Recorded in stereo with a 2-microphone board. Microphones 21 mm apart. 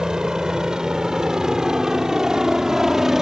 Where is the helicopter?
35° right (ahead or behind); by 3.2 s 25° right (ahead or behind).